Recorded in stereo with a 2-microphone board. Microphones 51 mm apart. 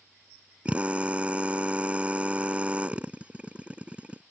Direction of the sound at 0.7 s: 25° right (ahead or behind).